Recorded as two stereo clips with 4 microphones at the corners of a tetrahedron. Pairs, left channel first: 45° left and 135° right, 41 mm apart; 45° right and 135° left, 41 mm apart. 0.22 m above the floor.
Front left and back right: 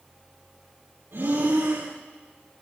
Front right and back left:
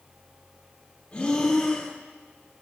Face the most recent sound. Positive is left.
turn(degrees=-115)